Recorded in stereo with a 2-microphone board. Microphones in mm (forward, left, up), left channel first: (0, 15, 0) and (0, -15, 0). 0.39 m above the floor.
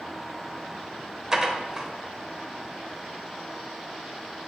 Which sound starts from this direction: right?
Dishes clattering, at 1.3 s.